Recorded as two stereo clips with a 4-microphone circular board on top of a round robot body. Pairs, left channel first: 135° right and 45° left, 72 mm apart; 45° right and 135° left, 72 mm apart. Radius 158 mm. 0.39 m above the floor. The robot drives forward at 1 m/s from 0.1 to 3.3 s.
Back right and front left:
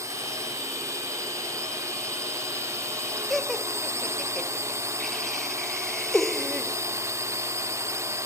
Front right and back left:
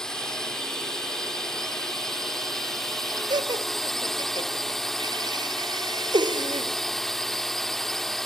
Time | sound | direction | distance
0.0 | a drone | 35° left | ?
3.3 | laughter | 140° left | ?